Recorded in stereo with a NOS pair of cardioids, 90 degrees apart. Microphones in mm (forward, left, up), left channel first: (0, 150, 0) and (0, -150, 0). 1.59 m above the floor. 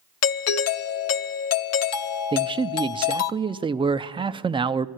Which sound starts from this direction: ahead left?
A doorbell, at 0.2 s.